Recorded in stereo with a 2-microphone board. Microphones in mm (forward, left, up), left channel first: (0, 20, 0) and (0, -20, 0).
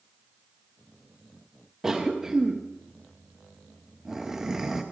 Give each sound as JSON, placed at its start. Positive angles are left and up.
{"t": 1.8, "sound": "a cough", "side_deg": -10, "distance_m": 0.6}